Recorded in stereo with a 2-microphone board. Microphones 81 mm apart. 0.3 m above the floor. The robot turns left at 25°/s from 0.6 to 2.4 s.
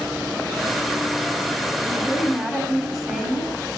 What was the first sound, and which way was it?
A woman speaking, 15° right (ahead or behind).